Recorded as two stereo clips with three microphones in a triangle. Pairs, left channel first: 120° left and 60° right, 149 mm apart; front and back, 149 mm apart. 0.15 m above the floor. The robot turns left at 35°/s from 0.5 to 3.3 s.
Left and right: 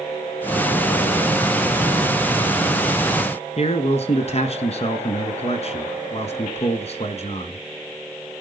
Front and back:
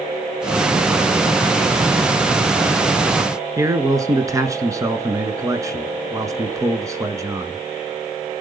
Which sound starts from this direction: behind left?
A man speaking, at 3.6 s.